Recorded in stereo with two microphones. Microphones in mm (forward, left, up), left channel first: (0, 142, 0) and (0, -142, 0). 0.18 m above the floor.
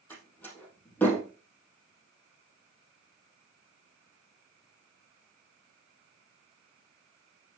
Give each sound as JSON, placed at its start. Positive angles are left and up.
{"t": 0.1, "sound": "a door slam", "side_deg": 5, "distance_m": 4.0}